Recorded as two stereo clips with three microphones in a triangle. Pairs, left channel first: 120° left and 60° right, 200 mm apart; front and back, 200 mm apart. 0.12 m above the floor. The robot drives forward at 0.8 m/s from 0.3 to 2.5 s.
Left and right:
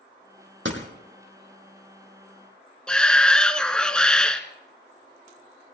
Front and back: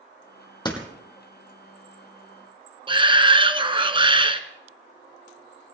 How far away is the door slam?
About 3 m.